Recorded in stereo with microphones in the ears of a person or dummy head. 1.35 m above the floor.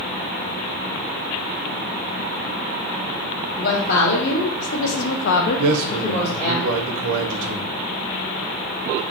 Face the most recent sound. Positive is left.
turn(degrees=-75)  # may be behind; listen again after turning